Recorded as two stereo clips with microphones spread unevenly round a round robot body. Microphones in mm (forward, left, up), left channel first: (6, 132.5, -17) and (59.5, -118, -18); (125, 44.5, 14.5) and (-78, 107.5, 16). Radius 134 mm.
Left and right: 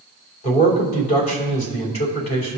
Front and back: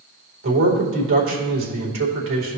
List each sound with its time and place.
0.4 s a man speaking: 160° left, 2.5 m